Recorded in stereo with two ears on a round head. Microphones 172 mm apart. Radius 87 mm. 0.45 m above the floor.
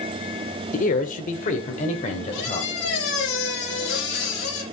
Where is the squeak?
60° left (ahead or behind), 7 m.